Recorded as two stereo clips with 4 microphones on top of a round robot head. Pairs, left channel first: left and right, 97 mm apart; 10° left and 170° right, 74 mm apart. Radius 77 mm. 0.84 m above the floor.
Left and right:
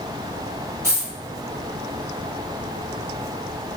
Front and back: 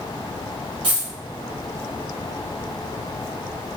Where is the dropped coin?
160° right, 1.1 m.